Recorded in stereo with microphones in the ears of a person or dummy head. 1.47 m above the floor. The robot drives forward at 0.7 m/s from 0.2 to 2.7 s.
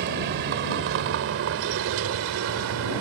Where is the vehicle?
60° right (ahead or behind); by 3.0 s 80° right.